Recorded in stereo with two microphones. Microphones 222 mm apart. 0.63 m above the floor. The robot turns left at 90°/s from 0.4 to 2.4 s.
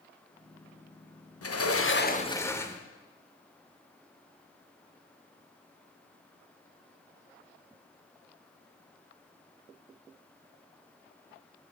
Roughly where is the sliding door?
Left.